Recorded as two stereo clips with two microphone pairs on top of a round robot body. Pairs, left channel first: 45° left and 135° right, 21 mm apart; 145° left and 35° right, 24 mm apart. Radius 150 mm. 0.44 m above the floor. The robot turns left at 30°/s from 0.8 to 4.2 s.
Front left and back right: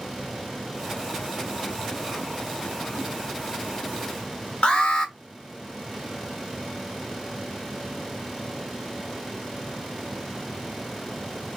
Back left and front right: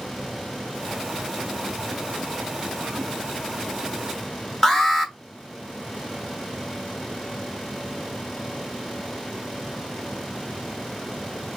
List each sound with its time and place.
4.6 s an alarm: 75° left, 1.4 m